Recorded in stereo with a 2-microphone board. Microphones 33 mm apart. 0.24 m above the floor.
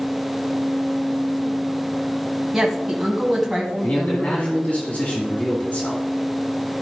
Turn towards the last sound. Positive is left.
turn(degrees=45)  # may be behind; listen again after turning